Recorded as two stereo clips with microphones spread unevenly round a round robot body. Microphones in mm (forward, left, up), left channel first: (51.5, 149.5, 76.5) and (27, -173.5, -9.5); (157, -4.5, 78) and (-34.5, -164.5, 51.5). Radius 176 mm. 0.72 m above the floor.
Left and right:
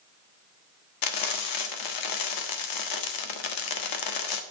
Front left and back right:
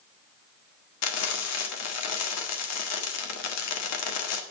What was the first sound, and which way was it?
Frying, 60° left.